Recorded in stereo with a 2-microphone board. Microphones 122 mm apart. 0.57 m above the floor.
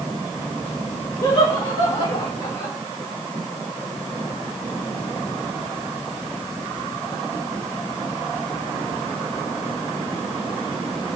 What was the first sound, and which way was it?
Laughter, 55° left (ahead or behind).